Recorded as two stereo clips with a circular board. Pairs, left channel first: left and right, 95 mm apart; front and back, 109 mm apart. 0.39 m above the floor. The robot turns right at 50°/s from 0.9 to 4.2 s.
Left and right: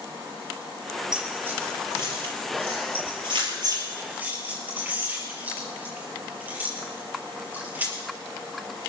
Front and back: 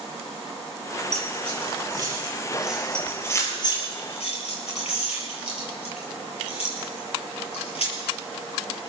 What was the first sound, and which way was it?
Keys jangling, 175° right.